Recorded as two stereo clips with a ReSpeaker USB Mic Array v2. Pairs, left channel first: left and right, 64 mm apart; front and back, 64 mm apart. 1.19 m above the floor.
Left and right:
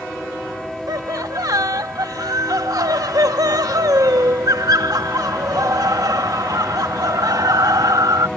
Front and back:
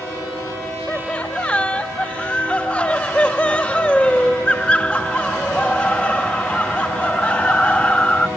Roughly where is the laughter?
Right.